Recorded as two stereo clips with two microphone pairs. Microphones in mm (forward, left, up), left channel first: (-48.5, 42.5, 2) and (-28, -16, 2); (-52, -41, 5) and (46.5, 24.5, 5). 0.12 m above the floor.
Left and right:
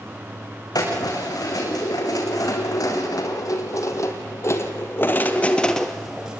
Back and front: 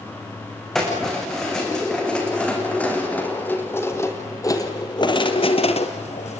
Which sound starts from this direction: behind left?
Keys jangling, at 0.8 s.